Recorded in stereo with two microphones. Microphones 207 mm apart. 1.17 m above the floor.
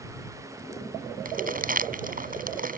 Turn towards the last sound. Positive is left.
turn(degrees=-45)  # may be behind; listen again after turning